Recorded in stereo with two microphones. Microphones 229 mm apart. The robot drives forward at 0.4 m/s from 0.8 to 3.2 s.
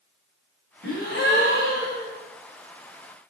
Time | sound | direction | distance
0.8 | a gasp | 50° left (ahead or behind) | 4.5 m